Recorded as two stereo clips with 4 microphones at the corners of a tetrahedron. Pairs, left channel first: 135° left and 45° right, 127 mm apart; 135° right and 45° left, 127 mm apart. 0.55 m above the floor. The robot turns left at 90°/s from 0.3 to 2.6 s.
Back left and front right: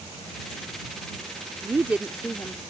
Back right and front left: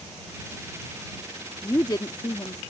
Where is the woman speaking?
85° right; by 2.6 s 175° right.